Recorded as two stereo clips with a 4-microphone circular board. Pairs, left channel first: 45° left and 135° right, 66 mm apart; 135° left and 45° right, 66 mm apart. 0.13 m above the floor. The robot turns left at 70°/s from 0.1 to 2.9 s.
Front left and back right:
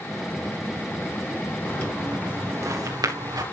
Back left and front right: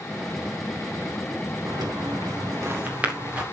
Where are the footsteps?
15° right, 4 m; by 3.4 s 120° right, 4 m.